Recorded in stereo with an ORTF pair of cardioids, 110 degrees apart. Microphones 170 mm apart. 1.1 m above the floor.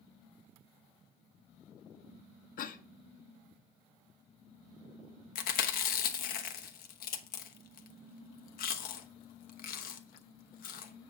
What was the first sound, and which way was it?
A cough, 55° left.